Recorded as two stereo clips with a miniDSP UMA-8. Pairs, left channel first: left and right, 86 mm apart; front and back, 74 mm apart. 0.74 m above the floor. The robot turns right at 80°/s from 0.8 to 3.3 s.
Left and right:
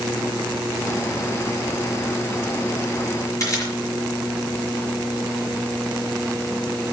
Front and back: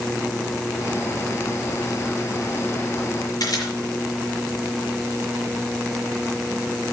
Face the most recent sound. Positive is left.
turn(degrees=40)